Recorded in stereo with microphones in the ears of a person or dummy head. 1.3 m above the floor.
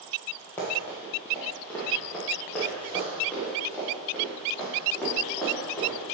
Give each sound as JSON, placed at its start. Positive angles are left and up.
{"t": 0.6, "sound": "running footsteps", "side_deg": 10, "distance_m": 1.9}